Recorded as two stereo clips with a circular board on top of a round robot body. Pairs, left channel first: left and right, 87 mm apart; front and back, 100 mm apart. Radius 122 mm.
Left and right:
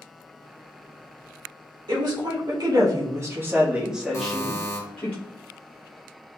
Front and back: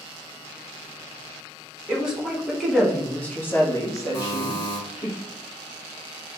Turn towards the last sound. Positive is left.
turn(degrees=40)